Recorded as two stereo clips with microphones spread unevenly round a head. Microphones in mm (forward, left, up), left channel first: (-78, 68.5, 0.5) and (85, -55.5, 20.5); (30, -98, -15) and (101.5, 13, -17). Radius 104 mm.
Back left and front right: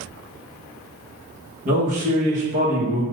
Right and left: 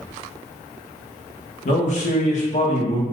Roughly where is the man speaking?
Right.